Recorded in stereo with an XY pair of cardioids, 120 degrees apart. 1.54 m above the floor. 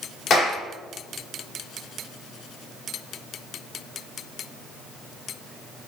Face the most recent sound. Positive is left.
turn(degrees=50)